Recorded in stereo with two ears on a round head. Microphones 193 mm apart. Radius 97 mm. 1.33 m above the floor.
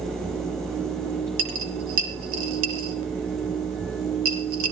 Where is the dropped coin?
70° right (ahead or behind), 5.5 m.